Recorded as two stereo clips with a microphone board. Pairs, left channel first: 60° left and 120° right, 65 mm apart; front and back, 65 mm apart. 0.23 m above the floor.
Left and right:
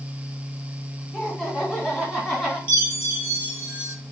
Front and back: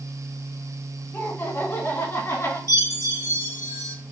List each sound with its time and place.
1.1 s laughter: 10° right, 1.8 m; by 2.6 s 20° right, 2.5 m
2.7 s a chime: straight ahead, 2.5 m